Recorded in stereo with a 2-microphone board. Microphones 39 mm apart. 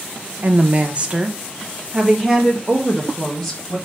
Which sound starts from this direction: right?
A woman speaking, at 0.4 s.